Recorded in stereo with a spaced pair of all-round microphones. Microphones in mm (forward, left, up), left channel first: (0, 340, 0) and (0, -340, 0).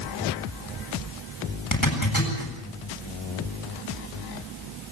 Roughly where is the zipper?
Left.